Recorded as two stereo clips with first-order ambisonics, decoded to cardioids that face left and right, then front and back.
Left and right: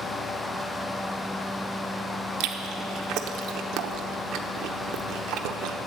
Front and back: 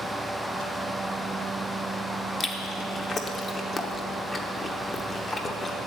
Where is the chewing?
70° right, 0.9 m.